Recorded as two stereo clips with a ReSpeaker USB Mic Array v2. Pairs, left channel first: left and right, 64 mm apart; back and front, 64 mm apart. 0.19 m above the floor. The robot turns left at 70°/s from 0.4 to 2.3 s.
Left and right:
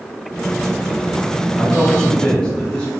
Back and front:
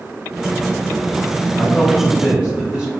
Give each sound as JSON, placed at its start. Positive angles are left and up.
{"t": 1.6, "sound": "a man speaking", "azimuth_deg": 95, "distance_m": 1.1}